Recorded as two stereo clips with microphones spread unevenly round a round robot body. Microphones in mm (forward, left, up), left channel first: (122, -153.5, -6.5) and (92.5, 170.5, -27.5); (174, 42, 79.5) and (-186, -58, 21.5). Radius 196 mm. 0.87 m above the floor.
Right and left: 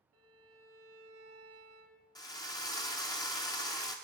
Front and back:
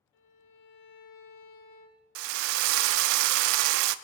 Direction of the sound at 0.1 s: 50° left.